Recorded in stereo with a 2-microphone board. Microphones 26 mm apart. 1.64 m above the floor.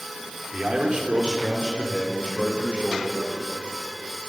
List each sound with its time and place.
0.5 s a man speaking: 35° right (ahead or behind), 4.5 m; by 3.2 s 50° right (ahead or behind), 8 m